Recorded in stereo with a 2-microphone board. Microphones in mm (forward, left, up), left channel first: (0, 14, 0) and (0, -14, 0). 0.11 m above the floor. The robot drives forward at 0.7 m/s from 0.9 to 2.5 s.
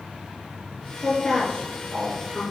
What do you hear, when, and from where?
1.0 s a woman speaking: 40° left (ahead or behind), 1.5 m; by 2.4 s 30° left (ahead or behind), 1.9 m